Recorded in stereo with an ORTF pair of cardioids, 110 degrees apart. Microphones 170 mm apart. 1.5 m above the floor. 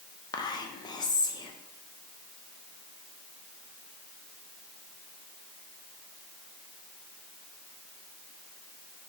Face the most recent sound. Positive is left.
turn(degrees=25)